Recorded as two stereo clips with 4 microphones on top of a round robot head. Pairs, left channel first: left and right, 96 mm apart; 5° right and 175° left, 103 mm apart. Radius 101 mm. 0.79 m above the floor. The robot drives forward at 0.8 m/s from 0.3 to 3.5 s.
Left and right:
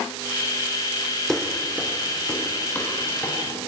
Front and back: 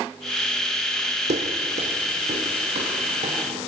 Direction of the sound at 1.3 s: 175° left.